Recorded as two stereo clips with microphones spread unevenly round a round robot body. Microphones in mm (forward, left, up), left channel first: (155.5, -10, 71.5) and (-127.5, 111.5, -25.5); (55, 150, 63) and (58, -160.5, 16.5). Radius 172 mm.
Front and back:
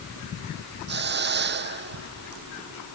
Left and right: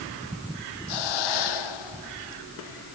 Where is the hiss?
100° left.